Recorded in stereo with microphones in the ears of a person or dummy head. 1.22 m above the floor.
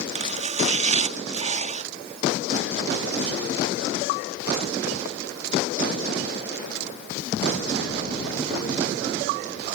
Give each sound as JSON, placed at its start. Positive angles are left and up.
{"t": 0.1, "sound": "chopping", "side_deg": -40}